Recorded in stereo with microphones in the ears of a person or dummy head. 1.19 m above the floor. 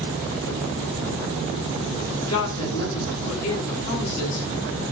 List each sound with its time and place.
2.3 s a woman speaking: 30° left (ahead or behind), 8 m